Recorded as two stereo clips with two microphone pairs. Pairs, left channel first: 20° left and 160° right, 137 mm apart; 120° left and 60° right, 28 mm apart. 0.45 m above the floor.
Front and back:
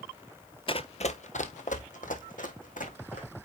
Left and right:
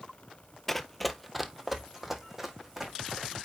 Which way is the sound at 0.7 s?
40° left.